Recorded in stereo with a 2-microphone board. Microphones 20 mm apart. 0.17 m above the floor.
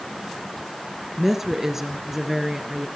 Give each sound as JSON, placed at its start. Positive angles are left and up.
{"t": 1.2, "sound": "a woman speaking", "side_deg": -15, "distance_m": 2.5}